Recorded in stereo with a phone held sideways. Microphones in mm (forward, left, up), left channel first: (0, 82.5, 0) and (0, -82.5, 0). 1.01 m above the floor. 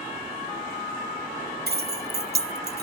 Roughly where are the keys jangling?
Right.